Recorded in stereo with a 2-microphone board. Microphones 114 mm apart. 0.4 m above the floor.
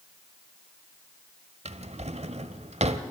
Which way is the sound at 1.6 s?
65° right (ahead or behind).